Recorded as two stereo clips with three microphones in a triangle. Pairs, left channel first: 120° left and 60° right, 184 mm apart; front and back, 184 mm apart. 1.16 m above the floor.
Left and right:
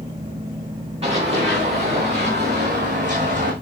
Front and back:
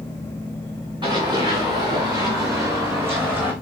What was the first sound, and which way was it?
Running footsteps, 115° right.